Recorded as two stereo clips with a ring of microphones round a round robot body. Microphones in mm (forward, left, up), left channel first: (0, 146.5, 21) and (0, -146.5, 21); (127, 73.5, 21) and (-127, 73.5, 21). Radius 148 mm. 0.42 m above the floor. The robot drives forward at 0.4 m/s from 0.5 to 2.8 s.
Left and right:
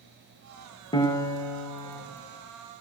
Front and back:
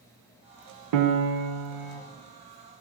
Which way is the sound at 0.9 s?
165° left.